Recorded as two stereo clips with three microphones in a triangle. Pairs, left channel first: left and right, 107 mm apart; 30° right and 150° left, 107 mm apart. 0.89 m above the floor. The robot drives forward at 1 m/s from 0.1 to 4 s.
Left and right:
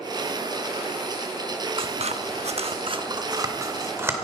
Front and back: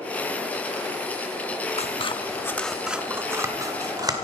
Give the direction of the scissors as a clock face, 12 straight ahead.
2 o'clock.